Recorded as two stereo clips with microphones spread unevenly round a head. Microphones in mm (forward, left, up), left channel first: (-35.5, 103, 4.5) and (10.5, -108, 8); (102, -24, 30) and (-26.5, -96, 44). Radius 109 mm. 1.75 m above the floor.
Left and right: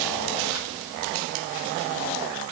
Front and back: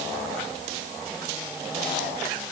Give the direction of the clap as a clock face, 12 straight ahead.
I don't hear a clap.